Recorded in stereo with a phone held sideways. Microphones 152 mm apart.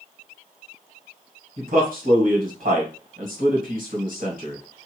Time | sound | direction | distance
1.6 | a man speaking | 65° right (ahead or behind) | 1.6 m